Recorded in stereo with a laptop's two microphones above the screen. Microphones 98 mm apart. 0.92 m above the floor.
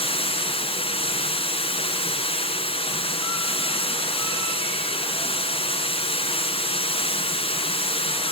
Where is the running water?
80° left, 5.5 m.